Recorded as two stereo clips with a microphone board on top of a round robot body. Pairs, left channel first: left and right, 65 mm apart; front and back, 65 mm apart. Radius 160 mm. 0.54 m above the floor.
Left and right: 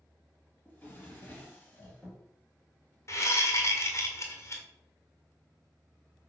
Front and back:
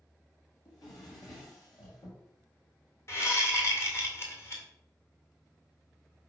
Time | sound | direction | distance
0.7 | a drawer | 20° left | 2.5 m
3.1 | a whoosh | 45° left | 2.0 m